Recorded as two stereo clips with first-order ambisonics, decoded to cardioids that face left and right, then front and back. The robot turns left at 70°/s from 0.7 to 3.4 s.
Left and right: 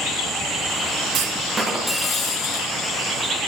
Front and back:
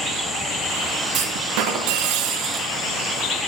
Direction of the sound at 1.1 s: 135° right.